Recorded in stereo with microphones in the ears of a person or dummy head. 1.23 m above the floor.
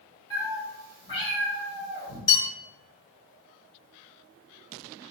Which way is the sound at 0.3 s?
25° left (ahead or behind).